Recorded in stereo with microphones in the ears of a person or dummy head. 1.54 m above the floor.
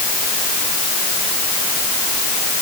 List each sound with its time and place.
Only background noise.